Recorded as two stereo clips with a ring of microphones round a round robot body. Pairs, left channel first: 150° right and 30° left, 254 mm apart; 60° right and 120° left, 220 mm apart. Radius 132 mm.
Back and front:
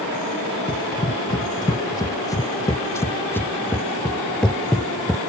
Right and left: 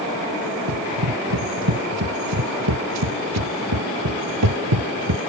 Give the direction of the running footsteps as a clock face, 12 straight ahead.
7 o'clock.